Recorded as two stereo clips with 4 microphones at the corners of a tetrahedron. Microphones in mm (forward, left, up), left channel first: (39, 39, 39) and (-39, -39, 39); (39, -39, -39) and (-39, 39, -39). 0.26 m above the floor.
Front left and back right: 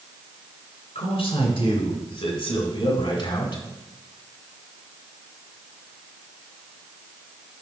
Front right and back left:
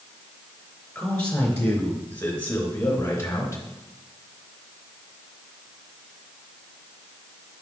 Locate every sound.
0.9 s a man speaking: 30° left, 3.5 m; by 3.6 s 15° left, 2 m